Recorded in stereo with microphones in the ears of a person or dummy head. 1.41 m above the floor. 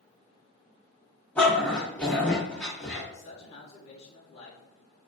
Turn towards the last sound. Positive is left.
turn(degrees=35)  # may be behind; listen again after turning